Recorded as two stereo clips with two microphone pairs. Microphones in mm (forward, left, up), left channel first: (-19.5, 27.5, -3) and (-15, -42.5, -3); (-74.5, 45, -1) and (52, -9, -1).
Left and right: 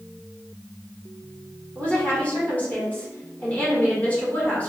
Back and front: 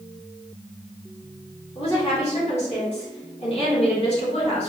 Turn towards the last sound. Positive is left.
turn(degrees=155)